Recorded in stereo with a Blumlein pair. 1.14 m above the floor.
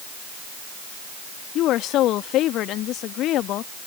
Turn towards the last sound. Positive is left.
turn(degrees=35)